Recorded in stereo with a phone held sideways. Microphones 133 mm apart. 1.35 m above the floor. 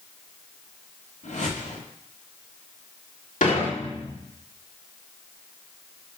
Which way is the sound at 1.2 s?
75° left (ahead or behind).